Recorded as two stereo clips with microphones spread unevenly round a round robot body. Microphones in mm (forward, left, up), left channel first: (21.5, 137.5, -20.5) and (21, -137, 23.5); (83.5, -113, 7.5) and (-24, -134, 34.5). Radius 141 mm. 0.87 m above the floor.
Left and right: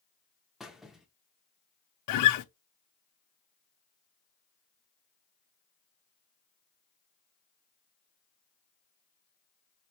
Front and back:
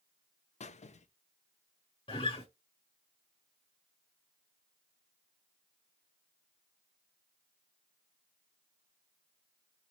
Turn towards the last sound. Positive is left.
turn(degrees=80)